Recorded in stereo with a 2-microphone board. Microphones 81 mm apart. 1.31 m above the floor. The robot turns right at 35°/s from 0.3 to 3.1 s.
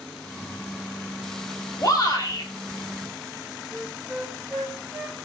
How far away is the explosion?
I don't hear an explosion.